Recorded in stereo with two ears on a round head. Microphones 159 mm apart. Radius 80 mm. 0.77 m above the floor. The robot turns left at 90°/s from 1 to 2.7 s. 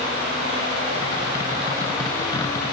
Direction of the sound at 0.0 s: 90° right.